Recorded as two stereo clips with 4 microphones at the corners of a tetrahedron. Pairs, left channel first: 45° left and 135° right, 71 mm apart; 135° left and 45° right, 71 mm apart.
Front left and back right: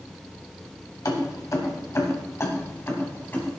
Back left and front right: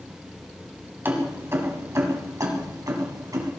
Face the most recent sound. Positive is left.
turn(degrees=-20)